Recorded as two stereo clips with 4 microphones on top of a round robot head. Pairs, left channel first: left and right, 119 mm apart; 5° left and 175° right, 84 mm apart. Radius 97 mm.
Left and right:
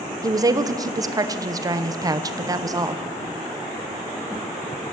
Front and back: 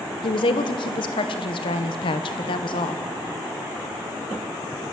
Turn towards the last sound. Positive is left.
turn(degrees=-30)